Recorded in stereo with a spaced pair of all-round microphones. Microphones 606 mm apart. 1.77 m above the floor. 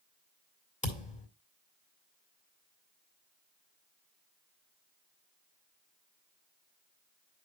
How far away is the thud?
About 2 m.